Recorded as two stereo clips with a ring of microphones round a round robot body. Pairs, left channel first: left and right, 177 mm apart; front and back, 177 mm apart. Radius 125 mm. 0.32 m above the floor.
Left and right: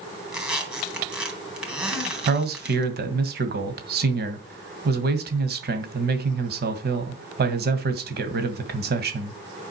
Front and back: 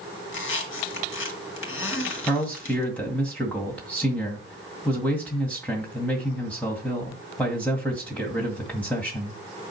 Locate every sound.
0.3 s a squeak: 5° right, 4 m
2.3 s a man speaking: 85° right, 2.0 m